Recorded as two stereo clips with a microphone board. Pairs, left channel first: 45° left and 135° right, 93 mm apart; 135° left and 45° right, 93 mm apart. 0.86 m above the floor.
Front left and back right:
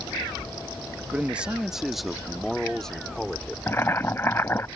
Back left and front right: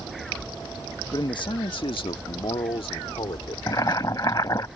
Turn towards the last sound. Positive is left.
turn(degrees=100)